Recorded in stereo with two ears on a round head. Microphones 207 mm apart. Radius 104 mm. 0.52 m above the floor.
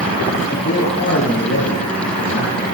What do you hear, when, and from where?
0.5 s a man speaking: 35° left (ahead or behind), 9.5 m; by 2.8 s 45° left (ahead or behind), 9 m